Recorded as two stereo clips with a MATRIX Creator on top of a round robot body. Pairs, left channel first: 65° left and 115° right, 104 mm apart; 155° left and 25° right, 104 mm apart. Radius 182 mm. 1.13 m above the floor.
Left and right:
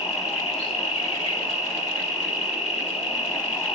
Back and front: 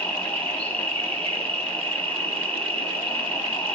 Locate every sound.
0.0 s an insect: 80° left, 6 m